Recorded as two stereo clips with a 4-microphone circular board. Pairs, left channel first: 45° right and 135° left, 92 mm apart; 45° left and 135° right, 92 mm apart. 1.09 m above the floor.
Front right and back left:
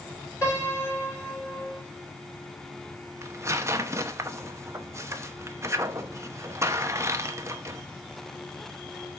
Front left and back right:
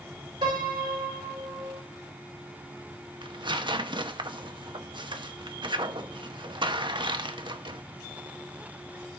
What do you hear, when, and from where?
0.4 s a piano: 110° right, 9 m
3.2 s tearing paper: 165° right, 0.9 m